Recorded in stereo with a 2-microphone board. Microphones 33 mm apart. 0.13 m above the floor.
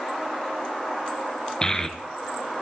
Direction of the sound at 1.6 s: 20° left (ahead or behind).